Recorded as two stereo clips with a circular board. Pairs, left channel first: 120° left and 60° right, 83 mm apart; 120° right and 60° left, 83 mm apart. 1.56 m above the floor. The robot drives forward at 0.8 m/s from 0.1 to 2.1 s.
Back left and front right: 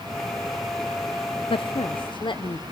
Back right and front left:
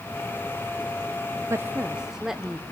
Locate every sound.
1.5 s a woman speaking: 115° left, 0.6 m; by 2.6 s 145° left, 0.9 m